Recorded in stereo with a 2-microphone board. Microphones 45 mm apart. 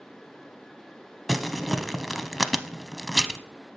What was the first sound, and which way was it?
Crumpling, centre (ahead or behind).